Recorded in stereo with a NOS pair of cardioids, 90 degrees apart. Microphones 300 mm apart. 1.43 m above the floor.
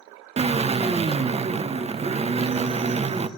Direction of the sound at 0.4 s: 20° right.